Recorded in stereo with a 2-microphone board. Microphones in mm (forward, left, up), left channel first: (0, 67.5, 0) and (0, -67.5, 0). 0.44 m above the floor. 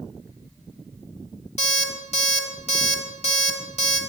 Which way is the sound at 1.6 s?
50° left (ahead or behind).